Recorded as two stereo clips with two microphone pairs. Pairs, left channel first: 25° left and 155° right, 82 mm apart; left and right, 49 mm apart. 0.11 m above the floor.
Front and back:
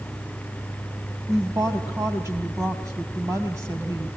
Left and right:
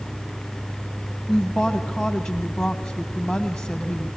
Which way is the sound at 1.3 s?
175° left.